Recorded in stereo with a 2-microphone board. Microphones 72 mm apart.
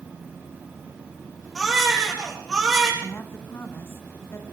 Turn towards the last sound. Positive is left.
turn(degrees=35)  # may be behind; listen again after turning